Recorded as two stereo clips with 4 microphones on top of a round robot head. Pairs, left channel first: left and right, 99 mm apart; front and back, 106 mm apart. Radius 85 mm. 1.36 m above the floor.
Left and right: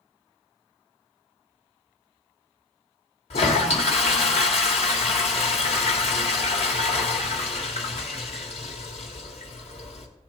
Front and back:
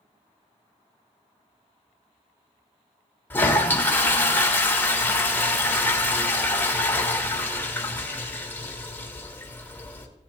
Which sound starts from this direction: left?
A toilet flushing, at 3.3 s.